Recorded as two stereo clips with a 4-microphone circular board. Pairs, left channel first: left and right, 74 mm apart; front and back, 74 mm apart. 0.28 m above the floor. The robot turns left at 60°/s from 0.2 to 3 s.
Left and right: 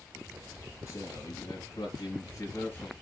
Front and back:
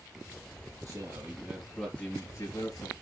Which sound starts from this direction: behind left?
A man speaking, at 0.9 s.